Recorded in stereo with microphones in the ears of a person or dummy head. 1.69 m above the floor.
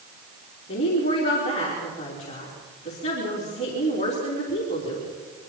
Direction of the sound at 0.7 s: 35° left (ahead or behind).